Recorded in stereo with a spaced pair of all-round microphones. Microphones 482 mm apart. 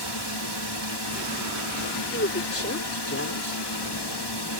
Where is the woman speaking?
30° left (ahead or behind).